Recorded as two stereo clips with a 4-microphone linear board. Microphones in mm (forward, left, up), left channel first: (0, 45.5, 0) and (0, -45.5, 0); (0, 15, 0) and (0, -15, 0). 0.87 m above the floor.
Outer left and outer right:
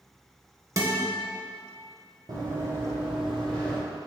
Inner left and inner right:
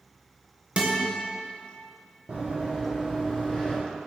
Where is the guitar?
35° right (ahead or behind), 0.7 m.